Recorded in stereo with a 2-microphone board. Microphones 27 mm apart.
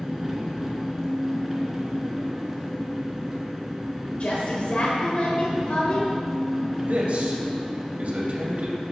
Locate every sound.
0.0 s an engine running: 5° right (ahead or behind), 1.8 m
4.2 s a woman speaking: 50° left (ahead or behind), 1.7 m
6.8 s a man speaking: 50° right (ahead or behind), 2 m